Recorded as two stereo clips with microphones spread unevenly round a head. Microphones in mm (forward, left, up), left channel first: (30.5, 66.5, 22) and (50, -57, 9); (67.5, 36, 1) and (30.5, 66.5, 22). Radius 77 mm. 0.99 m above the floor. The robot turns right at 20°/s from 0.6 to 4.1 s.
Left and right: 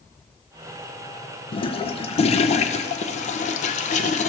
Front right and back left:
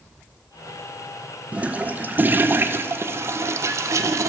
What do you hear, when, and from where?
1.5 s a toilet flushing: 60° left, 0.6 m; by 4.3 s 110° left, 0.6 m